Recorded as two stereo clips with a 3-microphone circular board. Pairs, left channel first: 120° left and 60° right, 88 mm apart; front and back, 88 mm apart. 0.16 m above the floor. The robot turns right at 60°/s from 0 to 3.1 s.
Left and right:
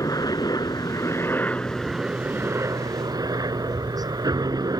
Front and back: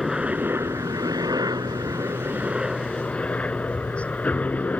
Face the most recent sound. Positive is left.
turn(degrees=-65)